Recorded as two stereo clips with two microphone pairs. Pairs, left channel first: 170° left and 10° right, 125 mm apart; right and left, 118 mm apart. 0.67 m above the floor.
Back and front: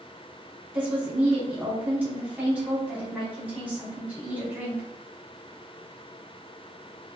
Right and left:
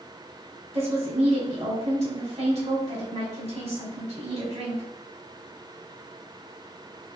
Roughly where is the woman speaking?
Left.